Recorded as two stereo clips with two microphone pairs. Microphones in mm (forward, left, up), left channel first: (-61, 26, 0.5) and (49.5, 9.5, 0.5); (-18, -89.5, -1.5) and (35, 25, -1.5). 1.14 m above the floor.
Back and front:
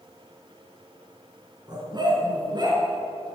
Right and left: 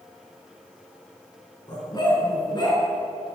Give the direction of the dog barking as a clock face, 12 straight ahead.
2 o'clock.